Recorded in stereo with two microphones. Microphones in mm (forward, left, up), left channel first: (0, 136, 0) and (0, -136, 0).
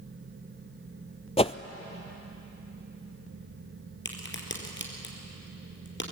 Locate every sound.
1.4 s a whoosh: 20° left (ahead or behind), 0.6 m
4.0 s a crack: 45° left (ahead or behind), 3 m